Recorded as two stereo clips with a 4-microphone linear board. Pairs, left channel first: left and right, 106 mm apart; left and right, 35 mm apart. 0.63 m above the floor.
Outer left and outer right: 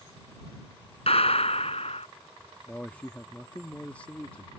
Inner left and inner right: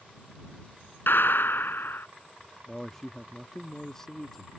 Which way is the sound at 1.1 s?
75° left (ahead or behind).